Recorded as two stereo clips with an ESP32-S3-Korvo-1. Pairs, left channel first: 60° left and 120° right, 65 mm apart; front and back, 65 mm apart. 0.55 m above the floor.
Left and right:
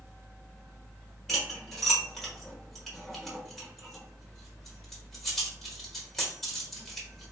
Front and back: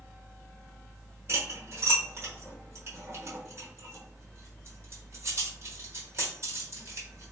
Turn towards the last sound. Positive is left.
turn(degrees=145)